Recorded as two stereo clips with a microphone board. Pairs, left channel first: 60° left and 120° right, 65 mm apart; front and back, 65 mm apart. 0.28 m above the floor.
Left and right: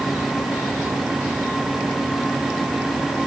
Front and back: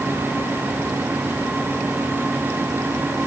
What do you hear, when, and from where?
Only background noise.